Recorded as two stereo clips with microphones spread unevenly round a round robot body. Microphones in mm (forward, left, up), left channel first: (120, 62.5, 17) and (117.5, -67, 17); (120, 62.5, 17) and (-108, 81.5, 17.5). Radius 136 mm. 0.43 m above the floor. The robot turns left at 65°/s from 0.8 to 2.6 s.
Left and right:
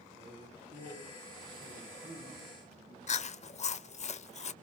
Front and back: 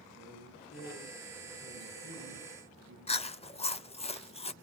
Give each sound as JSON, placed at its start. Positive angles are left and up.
{"t": 0.1, "sound": "a man speaking", "azimuth_deg": -45, "distance_m": 7.5}
{"t": 3.1, "sound": "chewing", "azimuth_deg": 60, "distance_m": 0.8}